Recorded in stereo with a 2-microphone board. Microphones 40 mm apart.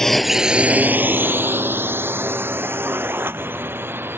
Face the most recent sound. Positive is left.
turn(degrees=-75)  # may be behind; listen again after turning